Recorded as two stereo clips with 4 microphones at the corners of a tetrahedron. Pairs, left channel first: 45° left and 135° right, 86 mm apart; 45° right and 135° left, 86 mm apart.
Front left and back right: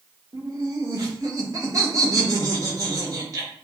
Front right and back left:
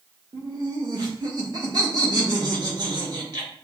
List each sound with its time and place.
0.3 s laughter: 175° left, 1.8 m